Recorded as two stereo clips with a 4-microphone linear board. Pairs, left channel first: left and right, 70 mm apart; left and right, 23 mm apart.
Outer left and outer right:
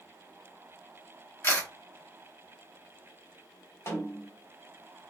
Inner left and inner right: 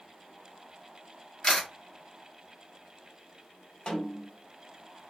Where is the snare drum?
40° left (ahead or behind), 1.2 m.